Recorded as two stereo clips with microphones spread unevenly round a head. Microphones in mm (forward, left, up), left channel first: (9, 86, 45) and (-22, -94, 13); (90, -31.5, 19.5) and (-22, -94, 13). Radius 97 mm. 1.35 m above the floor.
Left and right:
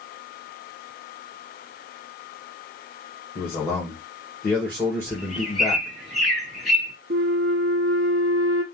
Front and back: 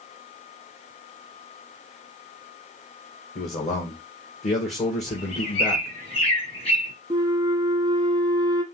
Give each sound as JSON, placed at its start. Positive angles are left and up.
{"t": 3.4, "sound": "a man speaking", "azimuth_deg": 0, "distance_m": 1.8}
{"t": 5.1, "sound": "a bird", "azimuth_deg": -10, "distance_m": 2.5}
{"t": 7.1, "sound": "a flute", "azimuth_deg": -110, "distance_m": 0.9}